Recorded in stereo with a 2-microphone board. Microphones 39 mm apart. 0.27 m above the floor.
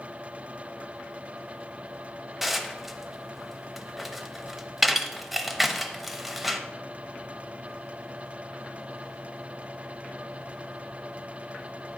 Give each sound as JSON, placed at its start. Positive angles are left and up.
{"t": 2.4, "sound": "dishes clattering", "side_deg": -5, "distance_m": 0.6}